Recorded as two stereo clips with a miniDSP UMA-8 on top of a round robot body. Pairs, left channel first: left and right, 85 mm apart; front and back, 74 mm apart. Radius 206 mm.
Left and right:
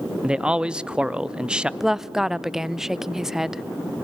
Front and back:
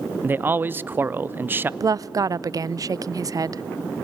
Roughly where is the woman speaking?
Behind.